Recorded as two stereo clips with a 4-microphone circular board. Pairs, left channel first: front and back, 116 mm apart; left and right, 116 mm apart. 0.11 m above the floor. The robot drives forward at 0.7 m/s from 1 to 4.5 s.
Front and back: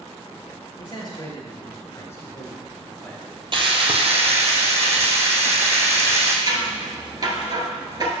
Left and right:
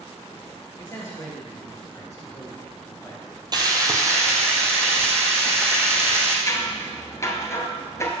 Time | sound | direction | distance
0.8 | a man speaking | 30° left | 2.5 m
3.5 | frying | 140° right | 0.8 m
6.5 | scissors | 145° left | 1.0 m